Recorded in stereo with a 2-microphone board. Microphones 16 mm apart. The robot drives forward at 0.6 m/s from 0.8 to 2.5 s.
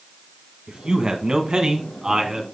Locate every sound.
0.7 s a man speaking: 50° right (ahead or behind), 1.5 m; by 2.4 s 40° right (ahead or behind), 1.7 m